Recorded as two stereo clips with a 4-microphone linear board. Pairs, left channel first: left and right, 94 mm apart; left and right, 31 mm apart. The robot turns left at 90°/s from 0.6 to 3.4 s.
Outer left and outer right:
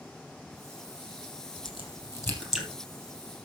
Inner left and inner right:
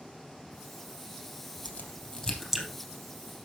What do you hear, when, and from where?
1.6 s a crack: 70° left (ahead or behind), 3.5 m; by 2.7 s 10° right (ahead or behind), 3.5 m